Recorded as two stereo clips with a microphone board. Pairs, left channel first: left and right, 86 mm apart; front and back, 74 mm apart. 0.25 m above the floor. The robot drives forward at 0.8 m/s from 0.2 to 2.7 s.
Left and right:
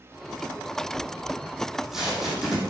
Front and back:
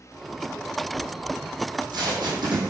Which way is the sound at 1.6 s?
175° right.